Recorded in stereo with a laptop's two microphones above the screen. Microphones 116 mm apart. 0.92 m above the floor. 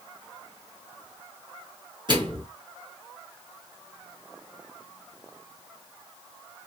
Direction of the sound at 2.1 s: 40° right (ahead or behind).